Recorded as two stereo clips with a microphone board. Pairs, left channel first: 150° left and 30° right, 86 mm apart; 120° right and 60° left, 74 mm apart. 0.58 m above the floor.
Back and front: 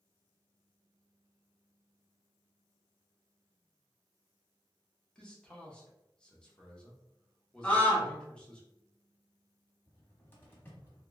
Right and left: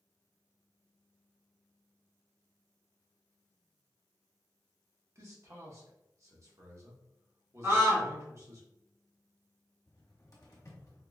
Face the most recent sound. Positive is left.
turn(degrees=-155)